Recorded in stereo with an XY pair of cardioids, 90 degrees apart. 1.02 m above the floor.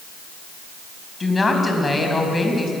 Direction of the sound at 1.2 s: 25° left.